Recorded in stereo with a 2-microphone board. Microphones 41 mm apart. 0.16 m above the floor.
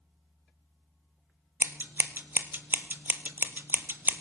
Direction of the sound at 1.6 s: 60° right (ahead or behind).